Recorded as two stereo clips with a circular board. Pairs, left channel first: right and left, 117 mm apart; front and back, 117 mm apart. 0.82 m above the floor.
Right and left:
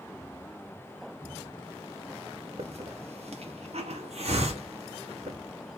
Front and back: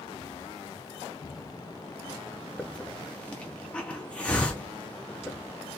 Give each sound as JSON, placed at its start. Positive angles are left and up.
{"t": 2.6, "sound": "a hiss", "azimuth_deg": 80, "distance_m": 1.2}